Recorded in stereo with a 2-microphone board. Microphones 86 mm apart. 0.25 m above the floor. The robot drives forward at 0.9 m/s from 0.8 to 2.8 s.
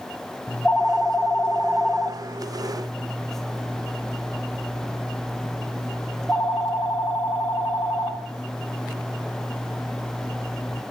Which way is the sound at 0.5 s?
20° left (ahead or behind).